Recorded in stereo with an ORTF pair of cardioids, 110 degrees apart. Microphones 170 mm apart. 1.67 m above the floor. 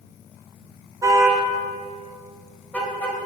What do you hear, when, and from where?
1.0 s a car horn: 20° right, 4 m; by 3.2 s 10° left, 5.5 m